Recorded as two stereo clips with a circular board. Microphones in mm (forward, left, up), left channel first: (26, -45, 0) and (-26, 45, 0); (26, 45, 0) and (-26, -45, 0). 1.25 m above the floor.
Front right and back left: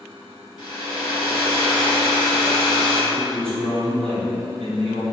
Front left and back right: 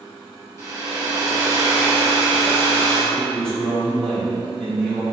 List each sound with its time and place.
0.6 s a hair dryer: 80° right, 1.0 m
3.1 s a man speaking: 140° left, 1.1 m